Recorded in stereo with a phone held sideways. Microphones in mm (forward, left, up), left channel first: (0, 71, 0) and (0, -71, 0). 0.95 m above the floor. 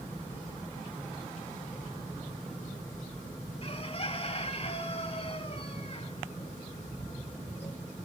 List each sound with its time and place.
3.6 s a bird: 45° left (ahead or behind), 1.5 m